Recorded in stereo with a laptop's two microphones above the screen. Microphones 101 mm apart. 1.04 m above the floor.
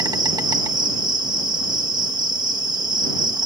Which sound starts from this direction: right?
An insect, at 0.0 s.